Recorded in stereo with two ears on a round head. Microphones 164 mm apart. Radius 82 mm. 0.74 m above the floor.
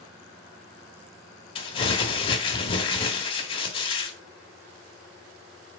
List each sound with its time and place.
1.6 s crumpling: 30° left (ahead or behind), 1.1 m